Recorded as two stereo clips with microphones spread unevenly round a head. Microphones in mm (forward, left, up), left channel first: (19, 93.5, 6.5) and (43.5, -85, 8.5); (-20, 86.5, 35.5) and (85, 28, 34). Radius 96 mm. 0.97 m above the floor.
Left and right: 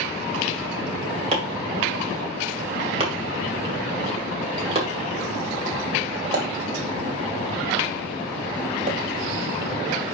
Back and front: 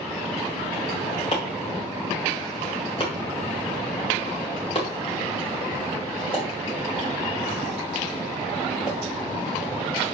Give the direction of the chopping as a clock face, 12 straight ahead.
5 o'clock.